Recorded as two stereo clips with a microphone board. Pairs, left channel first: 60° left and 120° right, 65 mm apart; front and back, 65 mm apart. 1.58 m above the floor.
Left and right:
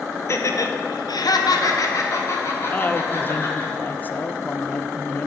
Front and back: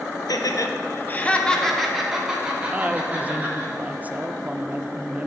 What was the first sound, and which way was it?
Laughter, 15° left.